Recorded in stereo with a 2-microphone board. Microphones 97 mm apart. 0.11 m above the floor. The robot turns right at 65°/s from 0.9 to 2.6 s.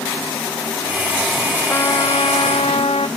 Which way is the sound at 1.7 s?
30° left.